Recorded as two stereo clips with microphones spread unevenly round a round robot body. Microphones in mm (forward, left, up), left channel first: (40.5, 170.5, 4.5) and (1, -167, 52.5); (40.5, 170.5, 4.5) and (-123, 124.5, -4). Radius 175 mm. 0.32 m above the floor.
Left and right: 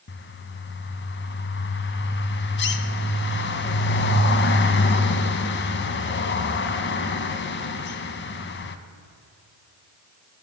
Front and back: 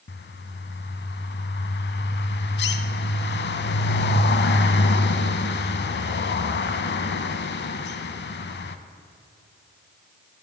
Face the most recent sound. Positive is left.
turn(degrees=25)